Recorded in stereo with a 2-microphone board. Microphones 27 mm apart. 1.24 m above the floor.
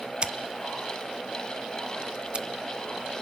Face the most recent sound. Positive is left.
turn(degrees=-40)  # may be behind; listen again after turning